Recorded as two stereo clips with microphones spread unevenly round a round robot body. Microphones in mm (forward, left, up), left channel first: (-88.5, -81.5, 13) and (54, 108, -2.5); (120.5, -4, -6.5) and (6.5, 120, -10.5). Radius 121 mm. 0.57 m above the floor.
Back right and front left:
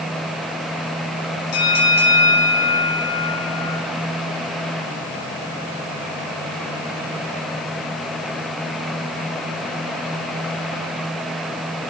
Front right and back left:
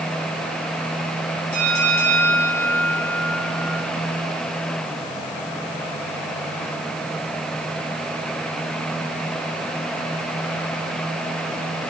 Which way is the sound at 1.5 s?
90° right.